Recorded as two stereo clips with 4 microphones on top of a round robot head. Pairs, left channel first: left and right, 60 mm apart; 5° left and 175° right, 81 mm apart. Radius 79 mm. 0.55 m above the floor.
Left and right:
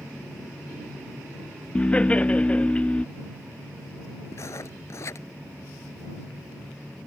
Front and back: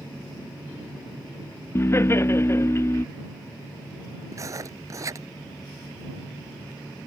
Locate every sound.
1.8 s laughter: 35° left
4.3 s writing: 135° left